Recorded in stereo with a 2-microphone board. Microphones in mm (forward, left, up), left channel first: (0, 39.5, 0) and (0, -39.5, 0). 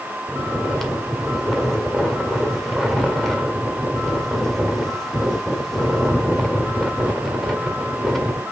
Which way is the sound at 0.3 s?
5° left (ahead or behind).